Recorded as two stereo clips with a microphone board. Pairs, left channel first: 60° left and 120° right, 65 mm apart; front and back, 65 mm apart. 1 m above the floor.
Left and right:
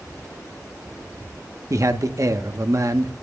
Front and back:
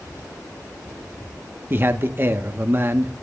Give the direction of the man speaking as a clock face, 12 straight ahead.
4 o'clock.